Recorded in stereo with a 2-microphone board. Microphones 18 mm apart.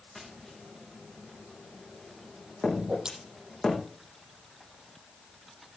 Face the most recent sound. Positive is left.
turn(degrees=-55)  # may be behind; listen again after turning